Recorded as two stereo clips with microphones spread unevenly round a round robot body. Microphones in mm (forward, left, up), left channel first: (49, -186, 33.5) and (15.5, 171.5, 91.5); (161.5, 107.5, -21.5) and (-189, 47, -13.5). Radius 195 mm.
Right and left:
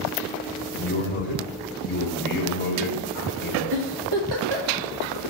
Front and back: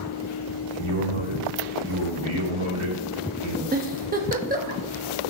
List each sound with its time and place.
0.7 s a man speaking: 145° right, 2.5 m
3.7 s a giggle: 125° left, 1.3 m